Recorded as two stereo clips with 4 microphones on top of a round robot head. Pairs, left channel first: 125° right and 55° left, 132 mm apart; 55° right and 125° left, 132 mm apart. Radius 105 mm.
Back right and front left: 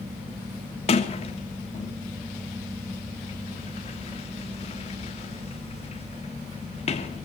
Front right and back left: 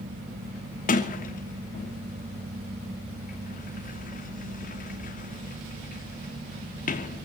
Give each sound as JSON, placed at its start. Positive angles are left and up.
{"t": 0.9, "sound": "a sliding door", "azimuth_deg": -80, "distance_m": 3.0}